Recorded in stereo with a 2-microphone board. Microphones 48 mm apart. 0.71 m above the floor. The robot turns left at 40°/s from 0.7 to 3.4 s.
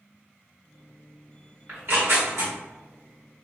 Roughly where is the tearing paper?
Right.